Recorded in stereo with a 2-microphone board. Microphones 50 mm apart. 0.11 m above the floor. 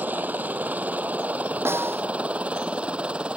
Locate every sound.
0.0 s a helicopter: 35° right (ahead or behind); by 3.4 s 25° right (ahead or behind)
1.6 s a snare drum: 55° right (ahead or behind)